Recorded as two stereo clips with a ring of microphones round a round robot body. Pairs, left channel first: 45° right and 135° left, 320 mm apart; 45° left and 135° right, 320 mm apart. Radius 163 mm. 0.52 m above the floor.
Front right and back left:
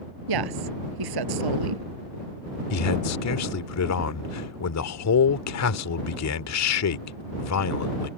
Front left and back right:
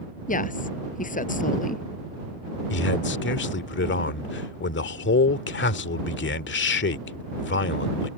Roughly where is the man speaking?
Ahead.